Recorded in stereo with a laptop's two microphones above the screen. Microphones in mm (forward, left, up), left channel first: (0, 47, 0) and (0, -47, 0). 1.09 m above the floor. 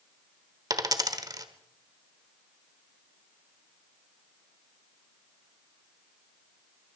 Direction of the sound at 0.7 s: 40° right (ahead or behind).